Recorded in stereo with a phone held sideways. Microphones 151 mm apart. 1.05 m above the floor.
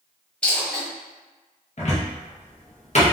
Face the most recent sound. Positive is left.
turn(degrees=50)  # may be behind; listen again after turning